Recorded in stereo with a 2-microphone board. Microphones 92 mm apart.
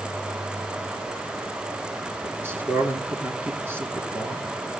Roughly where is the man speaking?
Right.